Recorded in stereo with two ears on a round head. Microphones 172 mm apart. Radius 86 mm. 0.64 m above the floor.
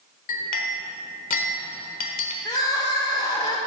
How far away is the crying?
About 1.5 m.